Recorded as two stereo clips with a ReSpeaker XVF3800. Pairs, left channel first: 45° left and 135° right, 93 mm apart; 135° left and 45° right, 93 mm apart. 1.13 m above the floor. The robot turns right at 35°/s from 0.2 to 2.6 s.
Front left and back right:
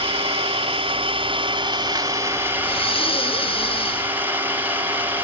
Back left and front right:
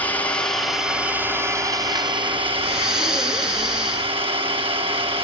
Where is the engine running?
150° right, 1.9 m; by 5.2 s 65° right, 1.9 m.